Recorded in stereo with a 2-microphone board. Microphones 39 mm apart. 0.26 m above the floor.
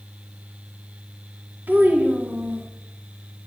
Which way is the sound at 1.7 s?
60° right (ahead or behind).